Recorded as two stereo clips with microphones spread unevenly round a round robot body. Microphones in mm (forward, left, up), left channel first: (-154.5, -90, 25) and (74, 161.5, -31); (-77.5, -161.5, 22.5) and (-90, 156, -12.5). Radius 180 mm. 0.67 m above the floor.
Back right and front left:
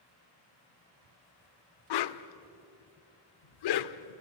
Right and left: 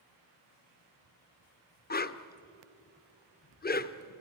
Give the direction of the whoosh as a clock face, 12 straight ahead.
5 o'clock.